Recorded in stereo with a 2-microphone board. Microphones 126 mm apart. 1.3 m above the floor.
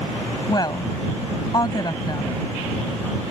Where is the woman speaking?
30° left (ahead or behind).